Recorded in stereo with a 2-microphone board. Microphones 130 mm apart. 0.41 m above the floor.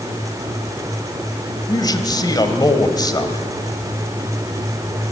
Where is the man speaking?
30° left (ahead or behind), 1.6 m.